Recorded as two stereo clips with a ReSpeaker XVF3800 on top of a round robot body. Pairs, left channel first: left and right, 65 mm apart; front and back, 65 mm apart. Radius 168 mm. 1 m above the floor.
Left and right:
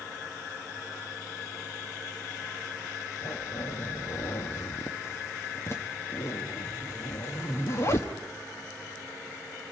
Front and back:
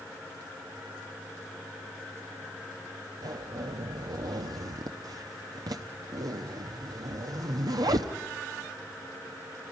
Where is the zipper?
145° left, 0.7 m.